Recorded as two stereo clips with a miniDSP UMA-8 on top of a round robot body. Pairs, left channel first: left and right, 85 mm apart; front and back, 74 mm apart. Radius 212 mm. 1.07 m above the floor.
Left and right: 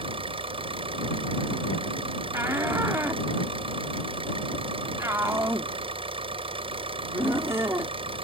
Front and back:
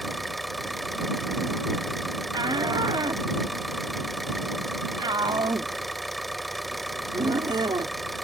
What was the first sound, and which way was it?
An engine running, 90° right.